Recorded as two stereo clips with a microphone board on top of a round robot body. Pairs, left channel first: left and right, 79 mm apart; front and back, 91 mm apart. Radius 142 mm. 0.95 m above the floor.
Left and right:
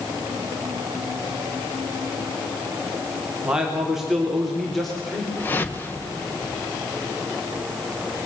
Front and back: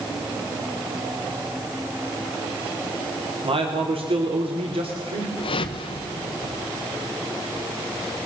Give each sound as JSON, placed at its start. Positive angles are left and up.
{"t": 3.4, "sound": "a man speaking", "azimuth_deg": -170, "distance_m": 3.5}
{"t": 5.4, "sound": "a whoosh", "azimuth_deg": 25, "distance_m": 1.4}